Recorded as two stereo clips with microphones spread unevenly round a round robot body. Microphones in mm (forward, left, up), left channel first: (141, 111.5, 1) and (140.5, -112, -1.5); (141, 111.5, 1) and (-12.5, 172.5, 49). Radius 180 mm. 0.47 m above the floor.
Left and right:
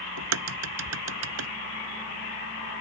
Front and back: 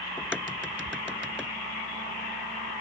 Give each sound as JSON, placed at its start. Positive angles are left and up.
{"t": 0.2, "sound": "a crack", "azimuth_deg": -115}